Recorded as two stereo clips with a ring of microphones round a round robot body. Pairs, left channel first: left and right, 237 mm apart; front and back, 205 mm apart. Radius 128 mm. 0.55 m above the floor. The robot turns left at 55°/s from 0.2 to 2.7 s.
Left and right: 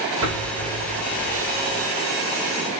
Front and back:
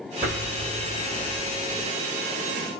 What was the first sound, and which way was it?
An explosion, 120° right.